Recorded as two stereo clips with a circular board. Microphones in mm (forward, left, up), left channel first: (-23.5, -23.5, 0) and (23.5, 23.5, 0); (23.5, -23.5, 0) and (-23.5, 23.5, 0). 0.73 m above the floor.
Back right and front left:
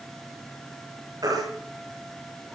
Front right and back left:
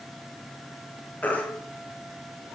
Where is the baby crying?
20° left, 9 m.